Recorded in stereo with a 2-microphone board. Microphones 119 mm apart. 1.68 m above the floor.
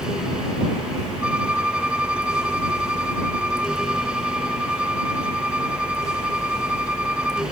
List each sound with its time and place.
1.2 s a violin: 10° right (ahead or behind)